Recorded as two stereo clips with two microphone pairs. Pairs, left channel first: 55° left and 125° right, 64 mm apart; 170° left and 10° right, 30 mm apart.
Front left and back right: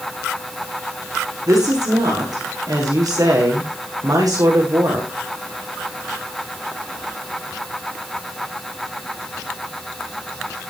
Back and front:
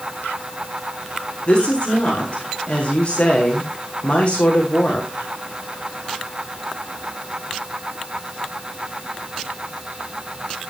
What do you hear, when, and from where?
1.5 s a woman speaking: 135° right, 7 m